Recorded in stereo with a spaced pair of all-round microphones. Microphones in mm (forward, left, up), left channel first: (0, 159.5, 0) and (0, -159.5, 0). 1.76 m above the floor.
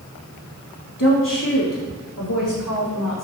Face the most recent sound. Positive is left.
turn(degrees=80)